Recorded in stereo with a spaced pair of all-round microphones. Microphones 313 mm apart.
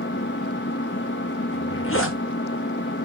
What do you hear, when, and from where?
0.0 s an engine running: 35° left (ahead or behind), 0.8 m
1.5 s a zipper: 40° left (ahead or behind), 1.4 m